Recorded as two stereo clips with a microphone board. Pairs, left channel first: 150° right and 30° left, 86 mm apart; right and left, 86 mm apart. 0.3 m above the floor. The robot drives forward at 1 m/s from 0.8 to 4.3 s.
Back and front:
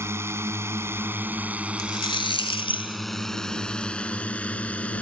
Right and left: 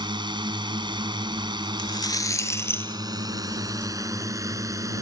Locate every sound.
0.0 s a drone: 85° left; by 5.0 s 135° left
1.8 s a rattle: 115° right; by 3.9 s 165° right